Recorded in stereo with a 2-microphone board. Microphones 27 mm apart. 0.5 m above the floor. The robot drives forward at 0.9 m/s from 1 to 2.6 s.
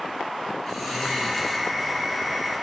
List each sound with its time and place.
0.7 s snoring: 5° left (ahead or behind), 3 m